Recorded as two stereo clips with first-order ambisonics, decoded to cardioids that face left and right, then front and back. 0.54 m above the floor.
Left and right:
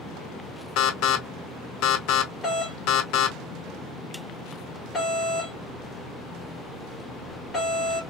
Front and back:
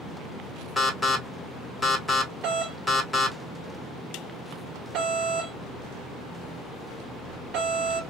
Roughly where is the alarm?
Left.